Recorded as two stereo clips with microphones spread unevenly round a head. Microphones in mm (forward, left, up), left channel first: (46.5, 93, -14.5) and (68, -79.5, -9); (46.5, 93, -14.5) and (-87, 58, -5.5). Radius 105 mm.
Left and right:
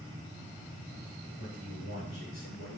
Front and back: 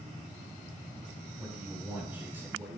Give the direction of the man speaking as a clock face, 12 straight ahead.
8 o'clock.